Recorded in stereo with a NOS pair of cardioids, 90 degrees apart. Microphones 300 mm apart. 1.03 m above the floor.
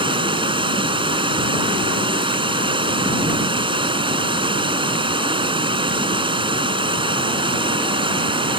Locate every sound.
0.0 s running water: 15° right